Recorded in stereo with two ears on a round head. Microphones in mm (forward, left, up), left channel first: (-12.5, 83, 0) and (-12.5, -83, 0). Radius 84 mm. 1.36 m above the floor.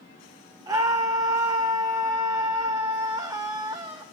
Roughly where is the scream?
Centre.